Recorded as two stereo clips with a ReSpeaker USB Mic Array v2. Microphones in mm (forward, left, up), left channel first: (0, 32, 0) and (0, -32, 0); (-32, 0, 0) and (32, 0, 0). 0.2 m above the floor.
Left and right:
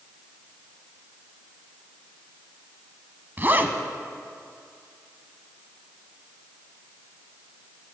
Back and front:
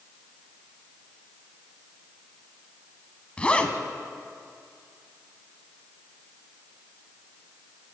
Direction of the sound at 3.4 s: 120° right.